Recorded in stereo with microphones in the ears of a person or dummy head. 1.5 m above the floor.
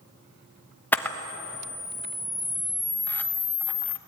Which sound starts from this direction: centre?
A camera shutter, at 0.9 s.